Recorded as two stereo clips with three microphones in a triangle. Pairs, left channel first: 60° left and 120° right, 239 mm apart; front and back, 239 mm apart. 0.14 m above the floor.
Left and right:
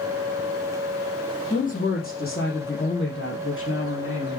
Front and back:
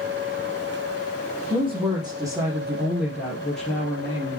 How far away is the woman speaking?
About 4.5 m.